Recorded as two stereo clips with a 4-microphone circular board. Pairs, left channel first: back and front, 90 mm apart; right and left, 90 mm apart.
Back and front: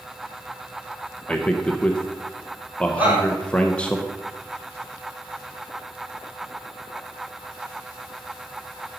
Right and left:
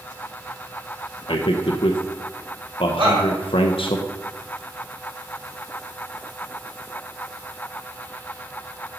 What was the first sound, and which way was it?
A man speaking, 100° right.